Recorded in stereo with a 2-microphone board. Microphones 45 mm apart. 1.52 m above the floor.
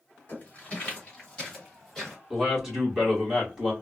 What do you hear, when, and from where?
0.3 s footsteps: 30° left (ahead or behind), 1.8 m; by 2.2 s 5° left (ahead or behind), 2.5 m
2.3 s a man speaking: 10° right (ahead or behind), 1.7 m